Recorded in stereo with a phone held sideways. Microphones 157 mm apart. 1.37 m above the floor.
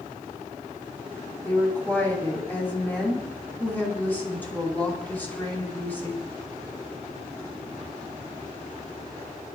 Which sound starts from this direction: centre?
A woman speaking, at 1.4 s.